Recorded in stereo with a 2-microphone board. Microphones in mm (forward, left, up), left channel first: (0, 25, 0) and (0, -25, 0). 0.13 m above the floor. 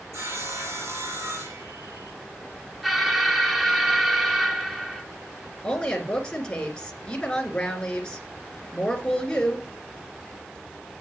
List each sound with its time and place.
0.1 s sawing: 65° right (ahead or behind), 6.5 m
2.8 s an alarm: centre (ahead or behind), 1.1 m
5.6 s a woman speaking: 20° left (ahead or behind), 1.9 m